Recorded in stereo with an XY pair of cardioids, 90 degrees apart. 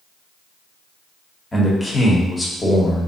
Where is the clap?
No clap in this recording.